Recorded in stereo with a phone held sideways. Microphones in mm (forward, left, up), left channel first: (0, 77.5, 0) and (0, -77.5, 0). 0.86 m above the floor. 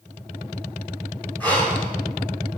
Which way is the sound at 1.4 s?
10° left (ahead or behind).